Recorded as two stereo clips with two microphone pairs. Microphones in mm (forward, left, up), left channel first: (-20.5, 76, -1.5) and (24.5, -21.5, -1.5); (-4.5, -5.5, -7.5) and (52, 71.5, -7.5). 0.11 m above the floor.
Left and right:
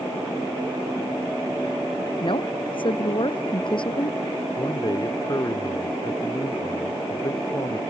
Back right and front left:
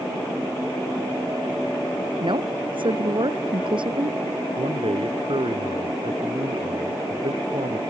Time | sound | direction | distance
2.2 | a woman speaking | 80° left | ?
4.6 | a man speaking | 65° left | ?